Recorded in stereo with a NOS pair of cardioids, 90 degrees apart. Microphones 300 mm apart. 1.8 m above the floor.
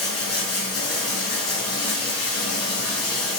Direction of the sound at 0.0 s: 55° left.